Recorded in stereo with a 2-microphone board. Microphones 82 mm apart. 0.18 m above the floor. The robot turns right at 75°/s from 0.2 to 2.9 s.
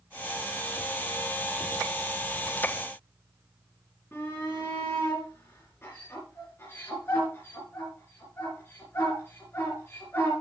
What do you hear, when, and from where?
4.1 s a shout: 30° left (ahead or behind), 3 m